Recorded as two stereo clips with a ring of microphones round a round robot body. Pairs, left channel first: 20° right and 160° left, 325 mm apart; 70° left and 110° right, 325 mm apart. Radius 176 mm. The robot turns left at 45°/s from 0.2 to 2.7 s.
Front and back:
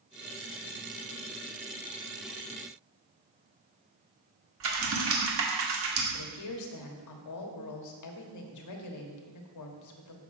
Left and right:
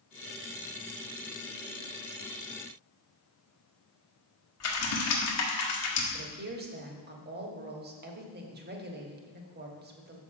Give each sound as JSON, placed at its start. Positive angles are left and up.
{"t": 4.6, "sound": "typing on a keyboard", "azimuth_deg": 110, "distance_m": 1.6}
{"t": 6.1, "sound": "a woman speaking", "azimuth_deg": -50, "distance_m": 1.3}